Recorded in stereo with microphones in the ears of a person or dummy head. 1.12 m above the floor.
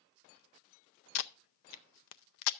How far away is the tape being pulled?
About 0.5 m.